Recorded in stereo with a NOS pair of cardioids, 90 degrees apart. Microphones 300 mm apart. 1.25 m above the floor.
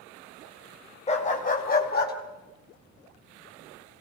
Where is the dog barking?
20° left, 3 m; by 2.1 s 30° left, 4.5 m.